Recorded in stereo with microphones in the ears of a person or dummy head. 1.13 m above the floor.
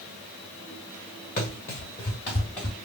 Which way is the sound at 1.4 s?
35° left (ahead or behind).